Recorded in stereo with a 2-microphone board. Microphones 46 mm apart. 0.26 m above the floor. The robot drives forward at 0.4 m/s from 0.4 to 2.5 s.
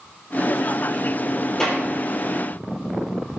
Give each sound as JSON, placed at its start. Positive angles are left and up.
{"t": 1.6, "sound": "a clap", "side_deg": 10, "distance_m": 6.5}